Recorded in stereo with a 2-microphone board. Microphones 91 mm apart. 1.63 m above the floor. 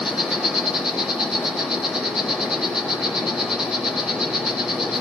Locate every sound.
0.0 s an insect: 5° right (ahead or behind), 1.9 m